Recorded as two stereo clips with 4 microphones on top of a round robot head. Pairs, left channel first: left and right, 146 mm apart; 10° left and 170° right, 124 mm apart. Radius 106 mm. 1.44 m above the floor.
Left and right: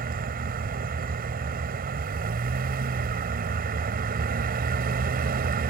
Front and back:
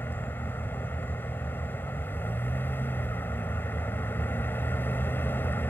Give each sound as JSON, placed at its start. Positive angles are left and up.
{"t": 0.0, "sound": "a vehicle", "azimuth_deg": -70}